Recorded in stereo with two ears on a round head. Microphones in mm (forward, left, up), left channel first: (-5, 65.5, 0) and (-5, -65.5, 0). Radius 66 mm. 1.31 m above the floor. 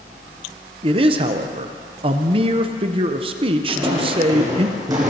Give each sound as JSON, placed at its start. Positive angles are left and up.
{"t": 0.8, "sound": "a man speaking", "side_deg": -35, "distance_m": 0.7}
{"t": 3.7, "sound": "footsteps", "side_deg": -20, "distance_m": 3.5}